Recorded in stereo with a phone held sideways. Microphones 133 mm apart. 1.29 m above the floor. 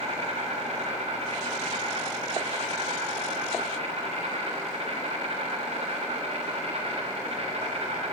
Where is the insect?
55° right (ahead or behind), 4.5 m.